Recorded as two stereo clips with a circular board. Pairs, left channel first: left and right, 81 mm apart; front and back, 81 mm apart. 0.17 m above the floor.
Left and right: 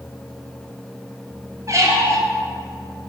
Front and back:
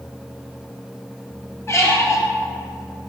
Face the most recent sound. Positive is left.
turn(degrees=-50)